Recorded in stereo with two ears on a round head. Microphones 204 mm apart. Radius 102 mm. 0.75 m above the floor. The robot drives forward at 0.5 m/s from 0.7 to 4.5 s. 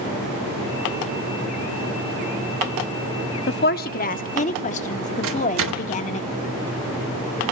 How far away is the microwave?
About 1.2 m.